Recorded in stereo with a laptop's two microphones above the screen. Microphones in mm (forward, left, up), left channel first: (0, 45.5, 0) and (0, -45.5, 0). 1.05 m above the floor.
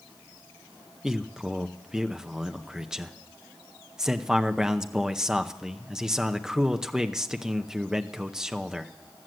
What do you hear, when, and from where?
1.0 s a man speaking: 5° right (ahead or behind), 0.6 m